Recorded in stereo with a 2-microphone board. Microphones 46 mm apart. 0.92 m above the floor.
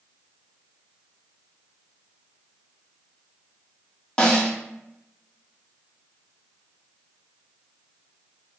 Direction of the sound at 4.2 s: 20° left (ahead or behind).